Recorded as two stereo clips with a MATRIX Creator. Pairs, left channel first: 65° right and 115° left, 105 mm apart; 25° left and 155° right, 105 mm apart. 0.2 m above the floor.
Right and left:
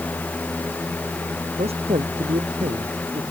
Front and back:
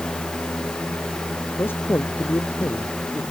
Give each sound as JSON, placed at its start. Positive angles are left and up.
{"t": 1.6, "sound": "a man speaking", "azimuth_deg": 90}